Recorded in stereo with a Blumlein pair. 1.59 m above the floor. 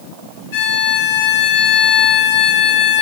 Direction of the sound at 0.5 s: 50° left.